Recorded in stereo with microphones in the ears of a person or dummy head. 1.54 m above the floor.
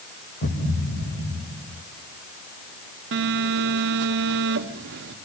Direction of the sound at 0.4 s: 50° left (ahead or behind).